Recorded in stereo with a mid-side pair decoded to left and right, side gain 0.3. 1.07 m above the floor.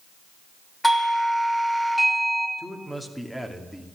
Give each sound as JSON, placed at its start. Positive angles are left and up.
{"t": 0.8, "sound": "a doorbell", "azimuth_deg": 10, "distance_m": 2.5}
{"t": 2.6, "sound": "a man speaking", "azimuth_deg": 5, "distance_m": 2.5}